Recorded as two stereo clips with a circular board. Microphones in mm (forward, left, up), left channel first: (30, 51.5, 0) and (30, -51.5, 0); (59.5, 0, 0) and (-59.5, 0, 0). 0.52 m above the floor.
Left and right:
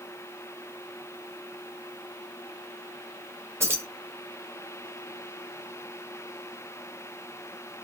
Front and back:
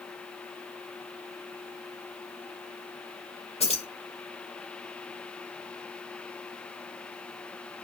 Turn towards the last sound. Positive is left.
turn(degrees=-25)